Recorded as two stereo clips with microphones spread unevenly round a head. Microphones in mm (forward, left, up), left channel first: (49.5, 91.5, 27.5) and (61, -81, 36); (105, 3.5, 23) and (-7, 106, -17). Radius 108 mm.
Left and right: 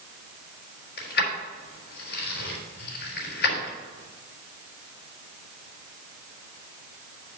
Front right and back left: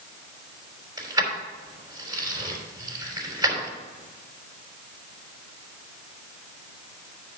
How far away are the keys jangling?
About 3.5 m.